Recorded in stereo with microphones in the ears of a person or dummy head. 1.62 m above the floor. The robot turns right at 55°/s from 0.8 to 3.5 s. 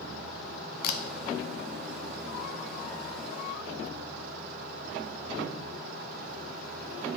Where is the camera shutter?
50° left (ahead or behind), 0.5 m.